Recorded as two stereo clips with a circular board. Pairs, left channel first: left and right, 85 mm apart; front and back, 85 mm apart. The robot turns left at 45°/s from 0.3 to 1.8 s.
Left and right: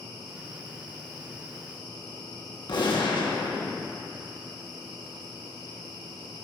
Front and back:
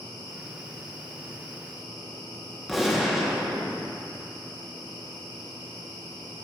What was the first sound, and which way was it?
A gunshot, 90° left.